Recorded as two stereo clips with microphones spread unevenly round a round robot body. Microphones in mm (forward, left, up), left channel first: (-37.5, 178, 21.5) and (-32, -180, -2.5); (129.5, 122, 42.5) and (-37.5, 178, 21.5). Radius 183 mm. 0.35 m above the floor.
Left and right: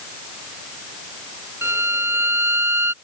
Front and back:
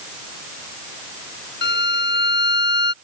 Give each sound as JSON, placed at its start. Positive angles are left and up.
{"t": 1.6, "sound": "a violin", "azimuth_deg": -5}